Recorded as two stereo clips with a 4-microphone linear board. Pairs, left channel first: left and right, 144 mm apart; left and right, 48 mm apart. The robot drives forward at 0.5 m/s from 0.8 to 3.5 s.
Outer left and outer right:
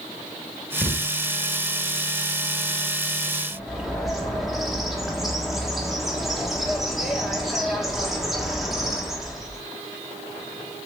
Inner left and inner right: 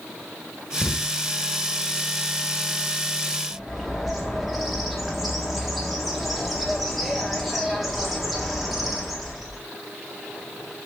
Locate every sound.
0.8 s a thud: 15° left (ahead or behind), 1.3 m
3.5 s a bird: centre (ahead or behind), 1.4 m